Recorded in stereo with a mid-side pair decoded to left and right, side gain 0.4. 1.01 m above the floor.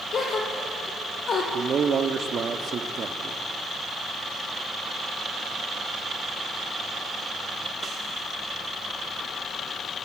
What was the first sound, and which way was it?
A gasp, 55° left.